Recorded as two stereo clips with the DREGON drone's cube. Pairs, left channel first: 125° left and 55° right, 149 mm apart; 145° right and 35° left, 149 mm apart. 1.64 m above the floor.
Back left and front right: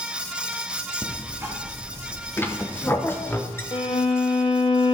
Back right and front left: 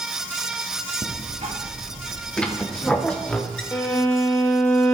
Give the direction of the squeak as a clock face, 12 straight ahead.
7 o'clock.